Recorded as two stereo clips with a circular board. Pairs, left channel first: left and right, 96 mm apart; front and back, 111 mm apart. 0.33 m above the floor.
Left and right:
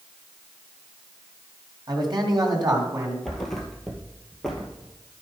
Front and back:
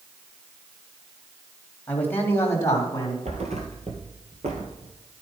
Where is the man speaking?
75° right, 2 m; by 3.1 s 50° right, 2.5 m.